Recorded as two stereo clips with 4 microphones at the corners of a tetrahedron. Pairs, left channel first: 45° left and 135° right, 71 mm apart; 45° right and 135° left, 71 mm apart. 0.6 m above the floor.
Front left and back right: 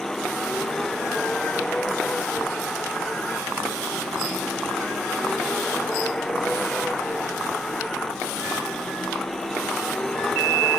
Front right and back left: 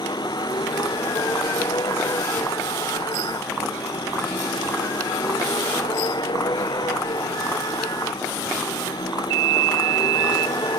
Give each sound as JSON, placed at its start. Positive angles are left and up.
{"t": 0.0, "sound": "a vehicle", "azimuth_deg": -40}